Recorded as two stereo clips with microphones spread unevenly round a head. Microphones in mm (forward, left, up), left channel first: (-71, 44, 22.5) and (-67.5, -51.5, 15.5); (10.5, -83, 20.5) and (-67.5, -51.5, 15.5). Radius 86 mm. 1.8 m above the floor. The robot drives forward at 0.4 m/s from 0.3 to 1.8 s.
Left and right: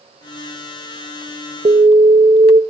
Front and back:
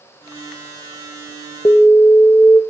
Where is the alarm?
65° right, 1.3 m; by 2.6 s 70° right, 1.3 m.